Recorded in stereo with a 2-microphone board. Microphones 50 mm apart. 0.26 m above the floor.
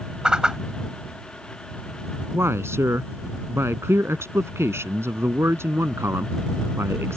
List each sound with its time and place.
0.2 s a whoosh: 15° right (ahead or behind)
2.3 s a man speaking: 60° right (ahead or behind)